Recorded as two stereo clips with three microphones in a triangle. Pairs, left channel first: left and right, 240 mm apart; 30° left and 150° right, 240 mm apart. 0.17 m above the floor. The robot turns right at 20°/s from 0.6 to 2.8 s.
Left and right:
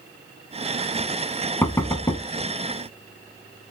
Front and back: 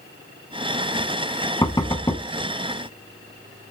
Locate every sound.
1.6 s knocking: 40° left, 0.7 m; by 2.2 s 55° left, 0.7 m